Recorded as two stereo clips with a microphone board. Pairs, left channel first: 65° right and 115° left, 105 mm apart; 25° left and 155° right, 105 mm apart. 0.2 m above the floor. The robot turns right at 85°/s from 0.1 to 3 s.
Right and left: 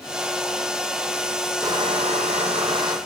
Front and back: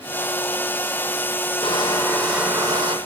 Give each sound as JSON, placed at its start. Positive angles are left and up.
{"t": 1.6, "sound": "crushing", "azimuth_deg": 55, "distance_m": 7.0}